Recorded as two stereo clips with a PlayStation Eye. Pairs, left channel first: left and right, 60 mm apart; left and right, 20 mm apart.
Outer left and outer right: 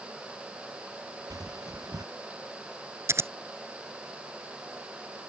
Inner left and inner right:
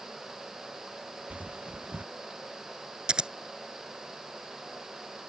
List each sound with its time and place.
1.3 s footsteps: 75° right (ahead or behind)
3.1 s scissors: 45° right (ahead or behind)